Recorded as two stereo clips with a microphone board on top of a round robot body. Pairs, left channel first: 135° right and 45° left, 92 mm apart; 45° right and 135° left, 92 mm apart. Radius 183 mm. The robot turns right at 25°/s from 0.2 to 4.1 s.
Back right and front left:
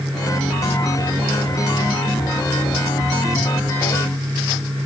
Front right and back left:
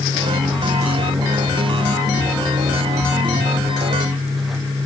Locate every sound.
Only background noise.